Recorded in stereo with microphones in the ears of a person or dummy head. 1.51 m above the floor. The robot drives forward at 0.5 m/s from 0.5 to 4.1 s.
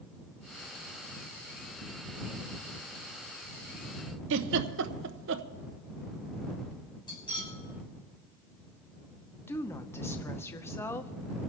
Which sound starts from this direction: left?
Cutlery clinking, at 7.1 s.